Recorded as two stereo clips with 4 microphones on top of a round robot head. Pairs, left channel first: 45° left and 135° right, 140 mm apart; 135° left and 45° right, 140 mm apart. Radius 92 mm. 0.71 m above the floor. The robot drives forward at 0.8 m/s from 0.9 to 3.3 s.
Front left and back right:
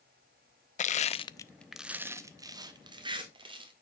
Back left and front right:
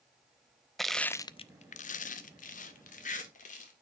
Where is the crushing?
45° left, 0.6 m; by 3.7 s 170° left, 1.7 m.